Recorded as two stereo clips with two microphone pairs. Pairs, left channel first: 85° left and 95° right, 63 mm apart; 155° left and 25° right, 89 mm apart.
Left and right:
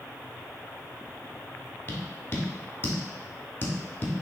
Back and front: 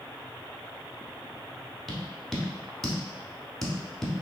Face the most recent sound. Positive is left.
turn(degrees=70)